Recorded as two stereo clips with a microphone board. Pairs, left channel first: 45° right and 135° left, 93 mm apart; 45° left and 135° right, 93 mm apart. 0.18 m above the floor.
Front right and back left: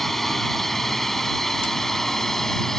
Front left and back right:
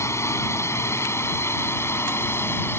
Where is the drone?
40° left; by 2.8 s 35° left.